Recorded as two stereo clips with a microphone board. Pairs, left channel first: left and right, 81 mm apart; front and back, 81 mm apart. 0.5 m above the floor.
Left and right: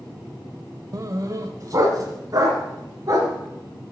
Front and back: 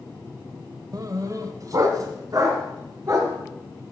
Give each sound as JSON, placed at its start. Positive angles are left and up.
{"t": 0.9, "sound": "a dog barking", "azimuth_deg": -135, "distance_m": 0.6}